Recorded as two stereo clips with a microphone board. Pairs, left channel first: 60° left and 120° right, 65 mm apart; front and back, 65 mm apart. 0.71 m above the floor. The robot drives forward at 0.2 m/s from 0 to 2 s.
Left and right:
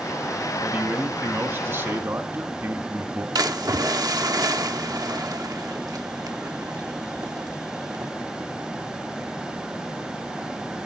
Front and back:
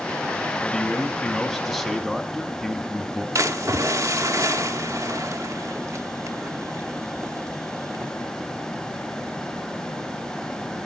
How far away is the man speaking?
About 1.0 m.